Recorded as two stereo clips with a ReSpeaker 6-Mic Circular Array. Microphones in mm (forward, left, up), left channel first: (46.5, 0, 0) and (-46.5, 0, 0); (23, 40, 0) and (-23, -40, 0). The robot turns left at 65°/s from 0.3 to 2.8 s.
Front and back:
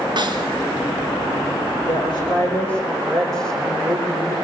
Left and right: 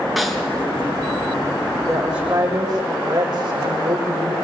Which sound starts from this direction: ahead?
A woman speaking, at 1.9 s.